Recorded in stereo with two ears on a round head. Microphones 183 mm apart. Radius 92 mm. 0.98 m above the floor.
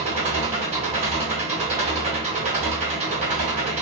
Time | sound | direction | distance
0.0 | an engine running | 35° right (ahead or behind) | 1.4 m